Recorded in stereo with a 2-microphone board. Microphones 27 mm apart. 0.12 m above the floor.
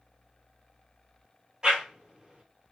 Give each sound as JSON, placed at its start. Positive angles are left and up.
{"t": 1.6, "sound": "a whoosh", "side_deg": -25, "distance_m": 1.2}